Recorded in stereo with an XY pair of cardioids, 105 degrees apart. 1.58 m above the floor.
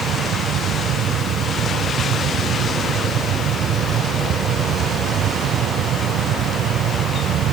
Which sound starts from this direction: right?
A fan, at 0.0 s.